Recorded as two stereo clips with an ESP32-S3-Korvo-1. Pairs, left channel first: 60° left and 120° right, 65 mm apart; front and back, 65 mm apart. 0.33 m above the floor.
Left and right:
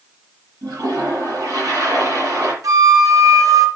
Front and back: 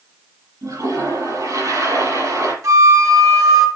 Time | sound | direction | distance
0.6 | a toilet flushing | 145° right | 7 m
2.6 | a flute | 150° right | 3.5 m